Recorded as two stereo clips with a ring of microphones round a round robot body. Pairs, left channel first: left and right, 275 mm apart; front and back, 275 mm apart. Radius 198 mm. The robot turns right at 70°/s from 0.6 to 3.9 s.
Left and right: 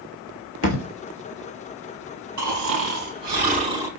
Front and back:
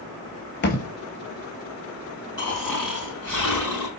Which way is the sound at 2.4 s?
115° right.